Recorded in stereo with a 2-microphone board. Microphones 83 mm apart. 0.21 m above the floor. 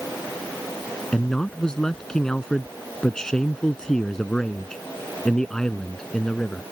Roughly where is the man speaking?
Centre.